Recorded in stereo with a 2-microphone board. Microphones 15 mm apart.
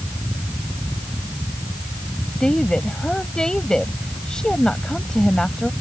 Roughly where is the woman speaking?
Left.